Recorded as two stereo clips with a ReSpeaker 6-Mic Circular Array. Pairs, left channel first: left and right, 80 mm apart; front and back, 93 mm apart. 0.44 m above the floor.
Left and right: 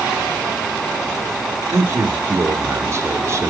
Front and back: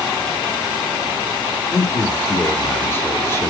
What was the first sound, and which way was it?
A man speaking, 50° right.